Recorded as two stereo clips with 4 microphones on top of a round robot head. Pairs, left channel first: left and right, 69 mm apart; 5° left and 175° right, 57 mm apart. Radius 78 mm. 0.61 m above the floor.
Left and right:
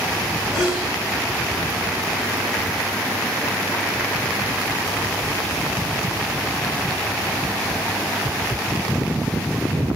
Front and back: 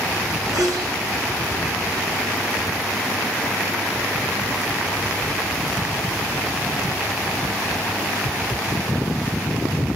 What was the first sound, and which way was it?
A sneeze, 170° right.